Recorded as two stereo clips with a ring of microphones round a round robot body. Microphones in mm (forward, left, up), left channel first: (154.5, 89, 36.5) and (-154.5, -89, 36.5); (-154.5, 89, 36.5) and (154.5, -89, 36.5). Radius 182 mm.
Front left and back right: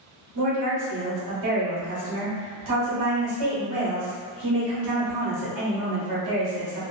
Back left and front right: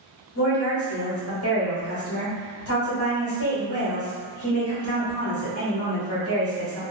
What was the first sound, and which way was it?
A woman speaking, 165° right.